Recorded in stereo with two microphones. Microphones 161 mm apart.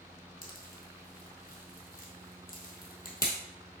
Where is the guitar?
No guitar in this recording.